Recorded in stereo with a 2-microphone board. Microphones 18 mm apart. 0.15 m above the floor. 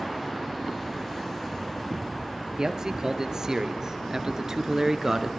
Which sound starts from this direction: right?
A man speaking, at 2.6 s.